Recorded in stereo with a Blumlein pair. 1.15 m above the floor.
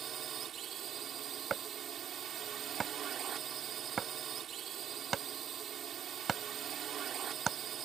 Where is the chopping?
20° right.